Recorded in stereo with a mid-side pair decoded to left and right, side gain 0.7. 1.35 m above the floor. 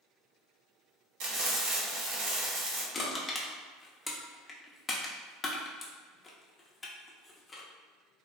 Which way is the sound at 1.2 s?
70° right.